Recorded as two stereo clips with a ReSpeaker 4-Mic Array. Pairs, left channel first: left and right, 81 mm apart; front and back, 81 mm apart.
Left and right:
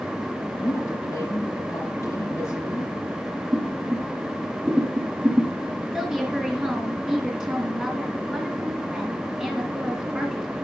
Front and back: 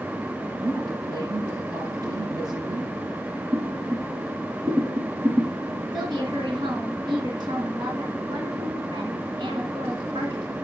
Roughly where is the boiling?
Behind right.